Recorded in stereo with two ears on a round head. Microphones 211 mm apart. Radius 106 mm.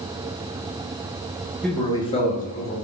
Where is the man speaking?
Centre (ahead or behind), 0.6 m; by 2.7 s 45° left (ahead or behind), 0.9 m.